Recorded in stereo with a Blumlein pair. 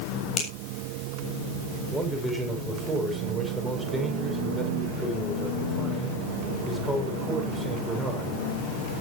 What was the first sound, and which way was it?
A finger snap, 25° left.